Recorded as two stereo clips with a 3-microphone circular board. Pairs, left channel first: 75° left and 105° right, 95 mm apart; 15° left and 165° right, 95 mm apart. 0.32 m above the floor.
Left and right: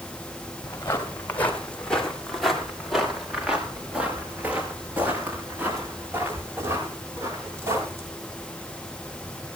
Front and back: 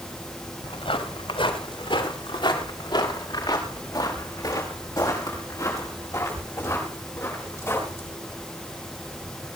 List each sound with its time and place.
0.6 s footsteps: 15° left, 4 m; by 8.1 s 45° right, 11.5 m